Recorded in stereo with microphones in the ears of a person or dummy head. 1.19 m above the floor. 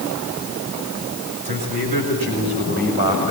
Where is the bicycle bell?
No bicycle bell in this recording.